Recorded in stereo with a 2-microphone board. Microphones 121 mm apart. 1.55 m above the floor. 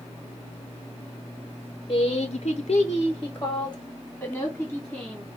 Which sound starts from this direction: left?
A woman speaking, at 1.9 s.